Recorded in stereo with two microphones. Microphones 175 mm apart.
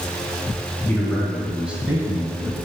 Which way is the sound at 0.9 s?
10° left (ahead or behind).